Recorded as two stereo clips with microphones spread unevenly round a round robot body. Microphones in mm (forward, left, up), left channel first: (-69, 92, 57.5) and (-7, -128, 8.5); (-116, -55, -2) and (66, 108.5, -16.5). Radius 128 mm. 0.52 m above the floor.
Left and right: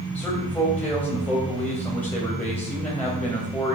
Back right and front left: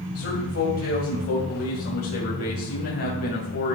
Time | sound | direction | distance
0.1 | a man speaking | 170° right | 2.5 m